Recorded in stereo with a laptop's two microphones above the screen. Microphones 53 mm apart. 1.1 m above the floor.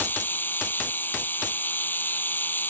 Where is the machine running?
35° left (ahead or behind).